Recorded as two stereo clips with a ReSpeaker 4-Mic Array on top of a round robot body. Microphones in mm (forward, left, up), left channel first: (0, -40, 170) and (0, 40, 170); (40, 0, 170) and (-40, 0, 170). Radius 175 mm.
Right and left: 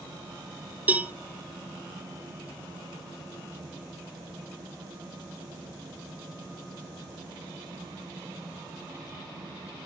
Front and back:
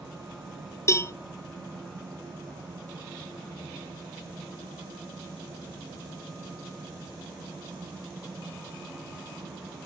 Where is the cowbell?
30° left, 1.1 m.